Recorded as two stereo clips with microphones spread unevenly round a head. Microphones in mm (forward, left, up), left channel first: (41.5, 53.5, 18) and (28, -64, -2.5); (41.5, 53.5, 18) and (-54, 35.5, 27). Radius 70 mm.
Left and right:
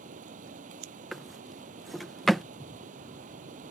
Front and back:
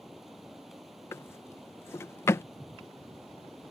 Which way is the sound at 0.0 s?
80° right.